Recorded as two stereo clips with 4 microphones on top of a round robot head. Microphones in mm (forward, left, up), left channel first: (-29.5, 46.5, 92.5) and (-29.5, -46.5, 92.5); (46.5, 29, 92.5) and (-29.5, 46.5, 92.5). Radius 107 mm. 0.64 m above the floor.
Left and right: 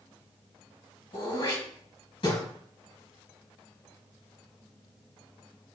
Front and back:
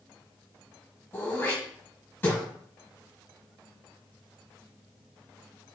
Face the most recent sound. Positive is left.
turn(degrees=50)